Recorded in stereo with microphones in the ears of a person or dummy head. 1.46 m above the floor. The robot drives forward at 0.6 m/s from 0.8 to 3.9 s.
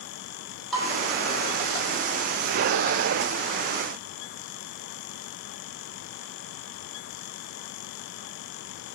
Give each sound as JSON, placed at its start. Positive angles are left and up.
{"t": 0.7, "sound": "dishes clattering", "side_deg": 0, "distance_m": 3.0}